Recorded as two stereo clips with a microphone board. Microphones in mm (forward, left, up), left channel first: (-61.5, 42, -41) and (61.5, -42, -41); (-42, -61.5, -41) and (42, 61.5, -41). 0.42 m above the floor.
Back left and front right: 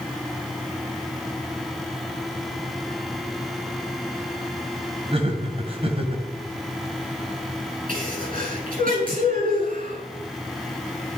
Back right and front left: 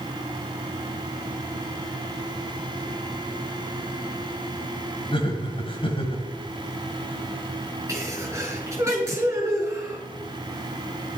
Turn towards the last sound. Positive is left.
turn(degrees=-15)